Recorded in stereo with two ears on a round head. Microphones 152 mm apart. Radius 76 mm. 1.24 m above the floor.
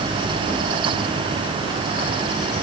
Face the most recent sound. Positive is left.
No sound to turn to.